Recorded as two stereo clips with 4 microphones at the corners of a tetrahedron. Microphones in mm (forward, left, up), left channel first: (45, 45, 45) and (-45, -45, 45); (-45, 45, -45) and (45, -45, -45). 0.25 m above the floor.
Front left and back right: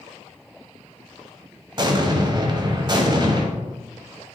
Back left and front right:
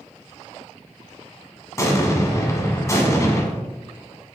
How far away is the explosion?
About 1.0 m.